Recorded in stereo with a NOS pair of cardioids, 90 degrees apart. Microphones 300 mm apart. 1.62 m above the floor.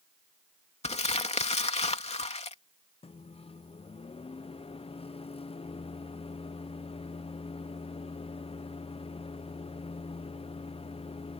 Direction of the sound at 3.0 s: 20° left.